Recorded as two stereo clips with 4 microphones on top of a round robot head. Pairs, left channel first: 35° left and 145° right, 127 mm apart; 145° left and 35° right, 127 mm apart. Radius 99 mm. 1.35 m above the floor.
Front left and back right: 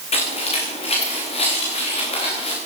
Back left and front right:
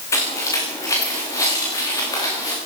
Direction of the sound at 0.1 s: 75° left.